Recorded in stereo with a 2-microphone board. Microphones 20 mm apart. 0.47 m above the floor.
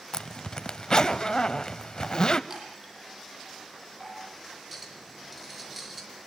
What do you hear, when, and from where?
0.1 s a zipper: 35° left (ahead or behind), 0.9 m
2.5 s a chime: 20° right (ahead or behind), 9 m
4.7 s a clink: centre (ahead or behind), 5 m